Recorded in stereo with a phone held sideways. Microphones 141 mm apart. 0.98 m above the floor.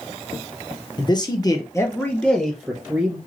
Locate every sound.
1.0 s a man speaking: 35° left (ahead or behind), 0.8 m; by 3.2 s 10° right (ahead or behind), 1.0 m